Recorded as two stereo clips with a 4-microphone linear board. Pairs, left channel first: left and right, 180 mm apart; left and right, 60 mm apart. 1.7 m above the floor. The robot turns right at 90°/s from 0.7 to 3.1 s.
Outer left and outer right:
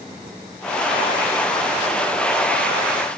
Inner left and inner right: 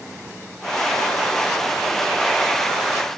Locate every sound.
Only background noise.